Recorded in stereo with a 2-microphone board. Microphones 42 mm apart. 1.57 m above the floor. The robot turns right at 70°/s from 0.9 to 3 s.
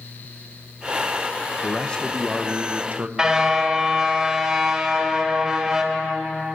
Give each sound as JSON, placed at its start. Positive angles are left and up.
{"t": 1.6, "sound": "a man speaking", "azimuth_deg": 135, "distance_m": 1.1}
{"t": 3.2, "sound": "a car horn", "side_deg": -20, "distance_m": 3.0}